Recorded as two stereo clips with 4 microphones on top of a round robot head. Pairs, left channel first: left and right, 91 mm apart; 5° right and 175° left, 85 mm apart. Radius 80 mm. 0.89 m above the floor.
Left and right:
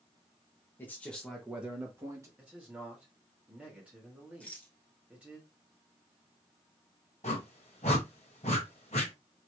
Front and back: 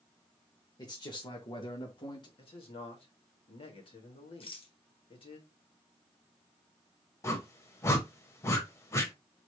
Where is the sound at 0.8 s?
25° left, 1.2 m; by 2.3 s 35° right, 1.5 m.